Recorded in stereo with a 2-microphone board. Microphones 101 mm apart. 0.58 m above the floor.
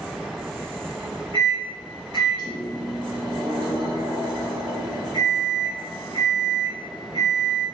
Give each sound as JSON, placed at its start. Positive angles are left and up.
{"t": 1.3, "sound": "a microwave", "side_deg": -45, "distance_m": 1.8}